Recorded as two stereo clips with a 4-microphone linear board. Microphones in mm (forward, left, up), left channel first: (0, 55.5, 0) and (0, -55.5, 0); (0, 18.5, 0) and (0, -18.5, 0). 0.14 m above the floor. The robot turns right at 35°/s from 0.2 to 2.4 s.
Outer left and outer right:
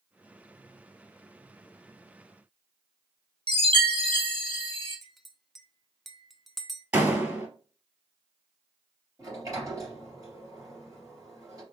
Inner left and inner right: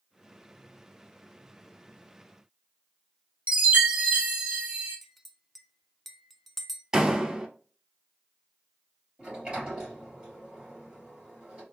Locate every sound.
3.5 s a chime: 50° right (ahead or behind), 1.6 m
5.0 s a clink: centre (ahead or behind), 0.6 m
6.9 s a door slam: 20° right (ahead or behind), 1.7 m
9.2 s a sliding door: 30° right (ahead or behind), 3 m